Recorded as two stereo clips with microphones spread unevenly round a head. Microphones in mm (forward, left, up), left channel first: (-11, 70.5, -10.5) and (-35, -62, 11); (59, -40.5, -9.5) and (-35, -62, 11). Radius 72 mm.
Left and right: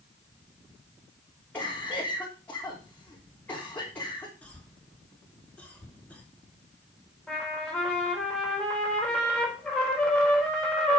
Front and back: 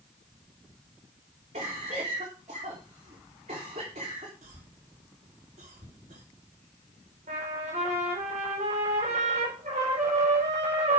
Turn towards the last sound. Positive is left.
turn(degrees=170)